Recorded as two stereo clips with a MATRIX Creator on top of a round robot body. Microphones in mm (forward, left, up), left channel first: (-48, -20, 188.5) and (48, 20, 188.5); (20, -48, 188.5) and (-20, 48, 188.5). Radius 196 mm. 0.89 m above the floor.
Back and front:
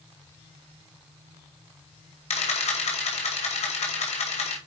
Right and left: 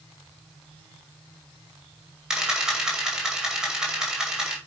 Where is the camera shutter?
165° right, 2 m.